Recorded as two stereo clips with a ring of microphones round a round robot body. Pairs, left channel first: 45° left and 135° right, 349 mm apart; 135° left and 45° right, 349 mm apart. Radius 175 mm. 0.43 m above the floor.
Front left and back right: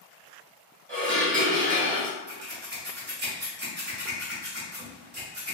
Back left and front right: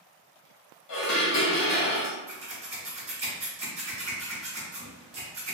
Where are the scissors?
100° right, 0.8 m.